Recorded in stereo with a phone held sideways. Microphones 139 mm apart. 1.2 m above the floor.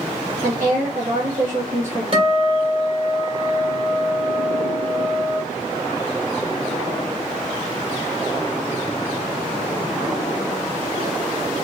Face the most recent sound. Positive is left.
turn(degrees=-40)  # may be behind; listen again after turning